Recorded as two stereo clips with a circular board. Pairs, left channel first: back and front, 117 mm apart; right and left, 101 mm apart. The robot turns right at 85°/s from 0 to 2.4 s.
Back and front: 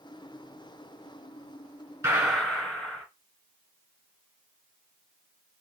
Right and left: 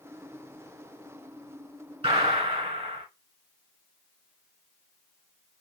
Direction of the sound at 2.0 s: 65° left.